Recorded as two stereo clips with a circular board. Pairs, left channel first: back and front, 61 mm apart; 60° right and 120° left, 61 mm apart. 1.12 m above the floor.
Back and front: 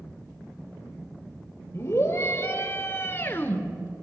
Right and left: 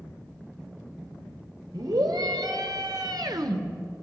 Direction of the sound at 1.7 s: 130° left.